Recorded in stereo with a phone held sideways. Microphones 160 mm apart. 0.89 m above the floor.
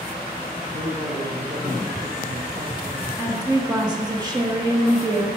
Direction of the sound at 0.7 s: 60° right (ahead or behind).